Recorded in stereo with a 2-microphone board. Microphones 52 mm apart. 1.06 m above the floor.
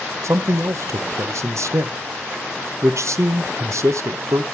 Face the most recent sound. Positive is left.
turn(degrees=-70)  # may be behind; listen again after turning